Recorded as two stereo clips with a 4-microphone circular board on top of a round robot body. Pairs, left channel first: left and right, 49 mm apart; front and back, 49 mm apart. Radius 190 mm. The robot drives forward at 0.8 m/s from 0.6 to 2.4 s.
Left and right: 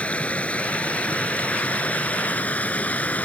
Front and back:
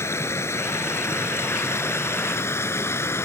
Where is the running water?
25° left; by 3.3 s 30° left.